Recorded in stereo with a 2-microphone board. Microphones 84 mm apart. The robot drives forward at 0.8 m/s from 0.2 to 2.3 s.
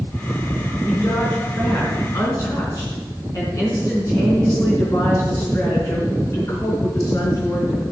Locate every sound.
0.8 s a woman speaking: 30° left (ahead or behind), 4 m; by 7.8 s 40° left (ahead or behind), 3 m